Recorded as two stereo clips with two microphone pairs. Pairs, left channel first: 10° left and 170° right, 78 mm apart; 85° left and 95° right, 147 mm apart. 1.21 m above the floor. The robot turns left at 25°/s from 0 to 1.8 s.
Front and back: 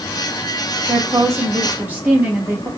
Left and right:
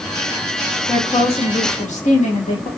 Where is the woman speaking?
150° left, 1.2 m; by 2.7 s 125° left, 1.2 m.